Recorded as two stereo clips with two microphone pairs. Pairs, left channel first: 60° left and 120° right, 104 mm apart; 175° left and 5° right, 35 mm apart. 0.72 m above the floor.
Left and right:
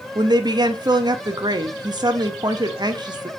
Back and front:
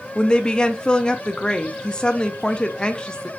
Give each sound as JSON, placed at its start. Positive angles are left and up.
{"t": 0.1, "sound": "a woman speaking", "azimuth_deg": -140, "distance_m": 0.6}